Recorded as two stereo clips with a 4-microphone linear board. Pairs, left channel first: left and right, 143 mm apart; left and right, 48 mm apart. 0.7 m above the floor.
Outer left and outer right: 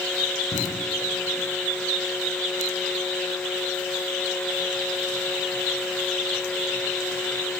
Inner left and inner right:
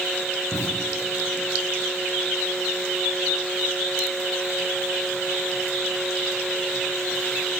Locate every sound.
0.5 s an explosion: 70° left (ahead or behind), 3.5 m